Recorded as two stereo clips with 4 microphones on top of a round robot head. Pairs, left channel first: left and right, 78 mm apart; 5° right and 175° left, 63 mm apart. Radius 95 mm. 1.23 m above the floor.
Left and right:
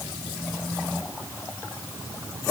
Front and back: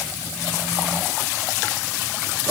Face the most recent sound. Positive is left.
No sound to turn to.